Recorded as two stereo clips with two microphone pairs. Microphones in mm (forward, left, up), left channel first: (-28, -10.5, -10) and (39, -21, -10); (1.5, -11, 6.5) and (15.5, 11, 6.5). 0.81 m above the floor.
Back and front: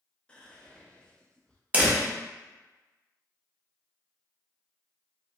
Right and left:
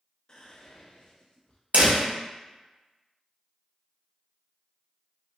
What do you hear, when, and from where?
0.3 s whispering: 130° right, 0.6 m
1.7 s a door slam: 60° left, 0.8 m